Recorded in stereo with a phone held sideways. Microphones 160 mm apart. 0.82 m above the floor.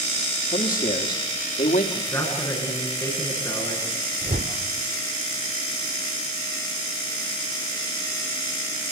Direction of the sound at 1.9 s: 20° left (ahead or behind).